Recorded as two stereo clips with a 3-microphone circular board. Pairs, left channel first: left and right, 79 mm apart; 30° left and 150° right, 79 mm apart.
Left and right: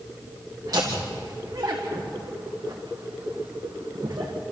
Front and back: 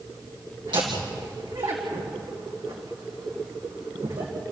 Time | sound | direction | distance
0.7 | laughter | 135° right | 2 m